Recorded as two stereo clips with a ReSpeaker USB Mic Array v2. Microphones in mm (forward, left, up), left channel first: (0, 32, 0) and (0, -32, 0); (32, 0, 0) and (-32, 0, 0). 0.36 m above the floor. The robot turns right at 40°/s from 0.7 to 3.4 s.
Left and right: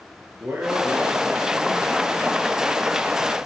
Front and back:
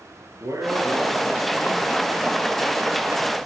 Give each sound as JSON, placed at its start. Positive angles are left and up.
{"t": 0.4, "sound": "a man speaking", "azimuth_deg": -145, "distance_m": 8.5}